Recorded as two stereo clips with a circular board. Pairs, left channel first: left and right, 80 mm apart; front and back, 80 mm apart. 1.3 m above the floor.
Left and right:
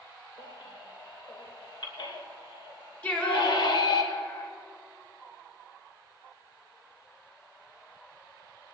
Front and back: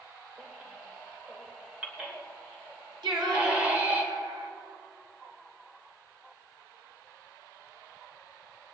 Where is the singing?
165° left, 2 m.